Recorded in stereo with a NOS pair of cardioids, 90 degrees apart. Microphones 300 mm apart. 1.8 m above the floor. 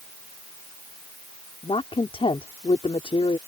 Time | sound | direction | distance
1.6 | a woman speaking | 20° left | ?